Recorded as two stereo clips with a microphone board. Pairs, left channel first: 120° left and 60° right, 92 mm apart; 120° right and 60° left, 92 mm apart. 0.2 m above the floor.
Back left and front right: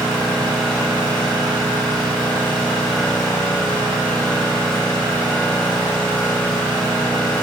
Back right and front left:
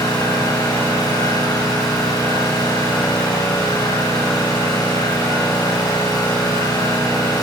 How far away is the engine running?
About 7 m.